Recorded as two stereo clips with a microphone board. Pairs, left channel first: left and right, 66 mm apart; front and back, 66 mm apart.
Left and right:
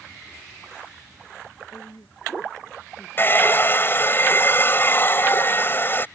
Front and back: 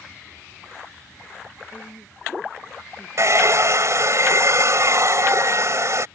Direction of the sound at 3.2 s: 140° left.